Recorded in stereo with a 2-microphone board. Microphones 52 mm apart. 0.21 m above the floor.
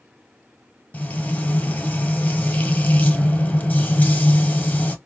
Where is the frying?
35° left (ahead or behind), 0.9 m.